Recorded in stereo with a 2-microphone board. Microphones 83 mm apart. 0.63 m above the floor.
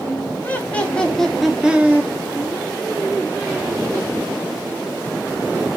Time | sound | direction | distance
0.4 | laughter | 20° left (ahead or behind) | 1.1 m